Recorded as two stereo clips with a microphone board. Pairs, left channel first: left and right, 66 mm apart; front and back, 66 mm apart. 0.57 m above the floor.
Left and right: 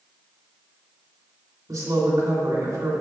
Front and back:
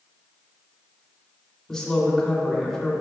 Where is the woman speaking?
80° right, 2.5 m.